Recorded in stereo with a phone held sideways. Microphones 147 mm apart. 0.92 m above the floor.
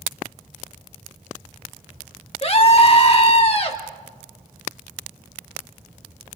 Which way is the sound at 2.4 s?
40° left (ahead or behind).